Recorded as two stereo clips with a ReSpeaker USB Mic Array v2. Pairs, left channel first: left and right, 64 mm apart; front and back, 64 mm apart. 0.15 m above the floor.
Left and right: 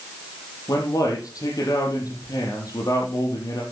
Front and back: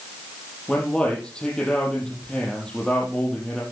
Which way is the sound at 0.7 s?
75° left.